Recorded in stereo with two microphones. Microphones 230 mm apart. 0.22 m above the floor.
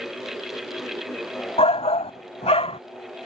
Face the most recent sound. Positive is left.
turn(degrees=25)  # may be behind; listen again after turning